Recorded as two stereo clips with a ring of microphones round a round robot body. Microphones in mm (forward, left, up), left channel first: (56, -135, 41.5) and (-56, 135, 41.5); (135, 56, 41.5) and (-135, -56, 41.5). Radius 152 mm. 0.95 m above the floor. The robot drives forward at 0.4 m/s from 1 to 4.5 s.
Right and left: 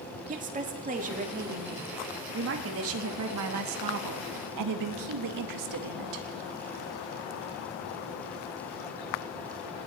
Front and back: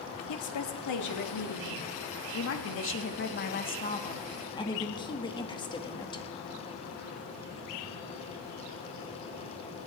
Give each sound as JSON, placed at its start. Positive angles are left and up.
{"t": 0.3, "sound": "a woman speaking", "azimuth_deg": 50, "distance_m": 1.9}